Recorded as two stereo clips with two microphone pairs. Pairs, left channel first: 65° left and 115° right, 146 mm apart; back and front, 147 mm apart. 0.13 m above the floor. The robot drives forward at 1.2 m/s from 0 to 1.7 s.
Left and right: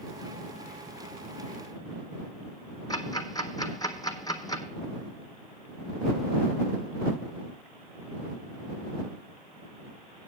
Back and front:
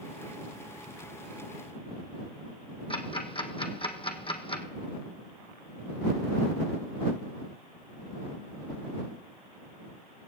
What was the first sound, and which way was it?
Ticking, 125° left.